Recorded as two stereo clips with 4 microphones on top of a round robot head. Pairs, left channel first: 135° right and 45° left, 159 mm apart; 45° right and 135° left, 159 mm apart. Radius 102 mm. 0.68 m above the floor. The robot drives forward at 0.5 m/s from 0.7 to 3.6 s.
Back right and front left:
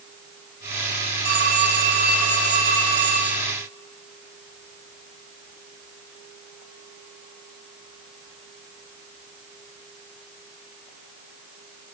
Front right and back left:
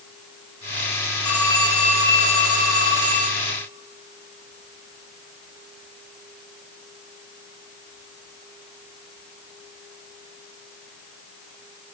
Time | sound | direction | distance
1.2 | a phone ringing | 55° left | 3.5 m